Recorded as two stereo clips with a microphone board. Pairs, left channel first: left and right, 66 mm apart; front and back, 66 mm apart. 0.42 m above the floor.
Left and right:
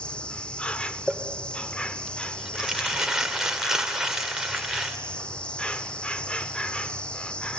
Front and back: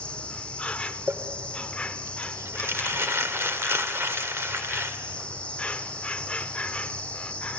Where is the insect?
40° left, 0.8 m.